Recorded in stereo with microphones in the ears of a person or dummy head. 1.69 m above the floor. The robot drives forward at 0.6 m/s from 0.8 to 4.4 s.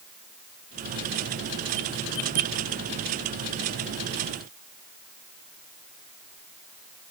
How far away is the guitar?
I don't hear a guitar.